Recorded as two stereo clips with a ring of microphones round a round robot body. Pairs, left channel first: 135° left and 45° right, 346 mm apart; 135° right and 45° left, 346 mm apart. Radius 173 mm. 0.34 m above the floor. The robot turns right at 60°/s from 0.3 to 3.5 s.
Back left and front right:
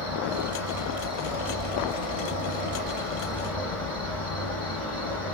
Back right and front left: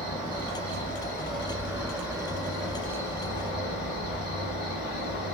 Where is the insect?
5° right, 2 m; by 5.3 s 175° right, 2 m.